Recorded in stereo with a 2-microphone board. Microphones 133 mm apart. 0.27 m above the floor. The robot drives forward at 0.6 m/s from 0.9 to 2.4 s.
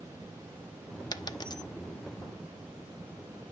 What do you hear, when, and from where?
1.1 s a dropped coin: 30° left (ahead or behind), 0.6 m